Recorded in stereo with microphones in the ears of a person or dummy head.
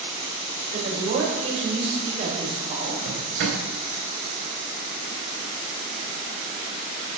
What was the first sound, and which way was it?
A woman speaking, 45° right (ahead or behind).